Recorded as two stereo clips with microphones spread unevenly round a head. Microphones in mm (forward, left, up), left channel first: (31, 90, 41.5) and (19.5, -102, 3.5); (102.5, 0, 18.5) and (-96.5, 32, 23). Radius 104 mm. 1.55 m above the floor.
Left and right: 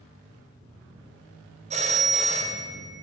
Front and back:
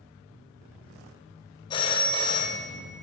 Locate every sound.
1.7 s a phone ringing: 55° right, 0.6 m